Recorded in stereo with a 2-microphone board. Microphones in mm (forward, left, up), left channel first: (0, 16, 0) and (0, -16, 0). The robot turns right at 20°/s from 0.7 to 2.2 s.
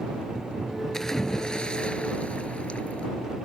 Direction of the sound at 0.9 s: 15° left (ahead or behind).